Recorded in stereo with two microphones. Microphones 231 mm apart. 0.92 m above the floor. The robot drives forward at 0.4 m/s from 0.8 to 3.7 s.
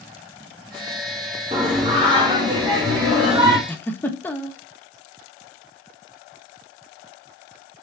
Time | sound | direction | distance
1.5 | singing | 25° right (ahead or behind) | 1.4 m
3.7 | a giggle | 10° left (ahead or behind) | 0.6 m